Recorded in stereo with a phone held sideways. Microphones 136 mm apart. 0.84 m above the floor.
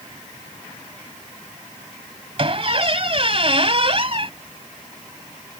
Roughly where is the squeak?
Right.